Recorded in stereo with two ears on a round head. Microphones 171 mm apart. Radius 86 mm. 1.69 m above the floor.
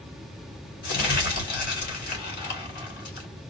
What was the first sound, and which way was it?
Crumpling, 55° left (ahead or behind).